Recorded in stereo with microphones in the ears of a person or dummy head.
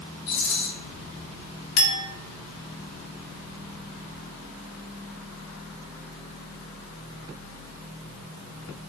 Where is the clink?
65° left (ahead or behind), 1.4 m.